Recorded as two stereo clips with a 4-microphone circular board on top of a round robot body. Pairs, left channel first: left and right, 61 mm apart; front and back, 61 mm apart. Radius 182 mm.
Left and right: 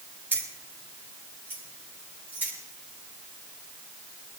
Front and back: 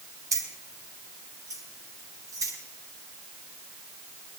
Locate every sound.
0.3 s keys jangling: 150° right, 3.5 m